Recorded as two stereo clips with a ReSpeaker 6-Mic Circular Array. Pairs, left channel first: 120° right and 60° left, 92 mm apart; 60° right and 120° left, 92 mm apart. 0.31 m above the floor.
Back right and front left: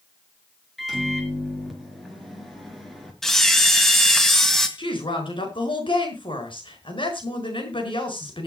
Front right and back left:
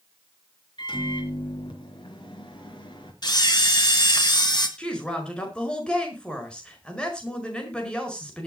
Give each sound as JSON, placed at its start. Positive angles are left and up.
{"t": 0.8, "sound": "a microwave", "azimuth_deg": -30, "distance_m": 4.0}
{"t": 3.2, "sound": "a camera shutter", "azimuth_deg": -35, "distance_m": 2.0}
{"t": 4.8, "sound": "a woman speaking", "azimuth_deg": -140, "distance_m": 5.0}